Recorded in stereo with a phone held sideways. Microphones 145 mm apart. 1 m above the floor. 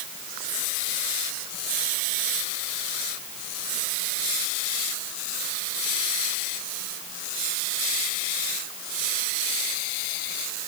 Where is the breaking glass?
No breaking glass in this recording.